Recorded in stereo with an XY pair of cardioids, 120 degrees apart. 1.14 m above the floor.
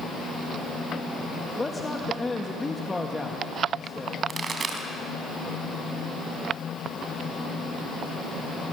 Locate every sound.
1.6 s a man speaking: 15° left, 1.5 m
4.3 s a pop: 35° right, 3.5 m